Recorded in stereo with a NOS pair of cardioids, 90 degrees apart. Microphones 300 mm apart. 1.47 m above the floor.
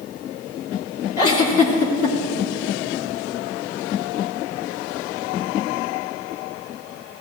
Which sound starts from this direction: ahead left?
A giggle, at 1.2 s.